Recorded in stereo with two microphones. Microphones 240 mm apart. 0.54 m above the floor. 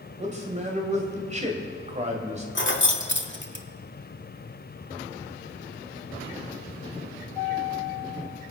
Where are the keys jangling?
50° left (ahead or behind), 1.0 m.